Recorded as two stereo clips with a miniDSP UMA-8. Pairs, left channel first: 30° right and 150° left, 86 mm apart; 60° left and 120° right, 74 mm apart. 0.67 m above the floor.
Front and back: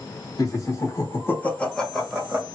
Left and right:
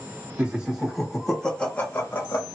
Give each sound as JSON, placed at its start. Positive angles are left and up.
{"t": 0.4, "sound": "laughter", "azimuth_deg": -50, "distance_m": 1.4}